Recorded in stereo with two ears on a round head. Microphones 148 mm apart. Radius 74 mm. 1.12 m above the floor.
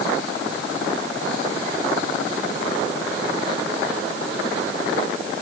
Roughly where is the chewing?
No chewing in this recording.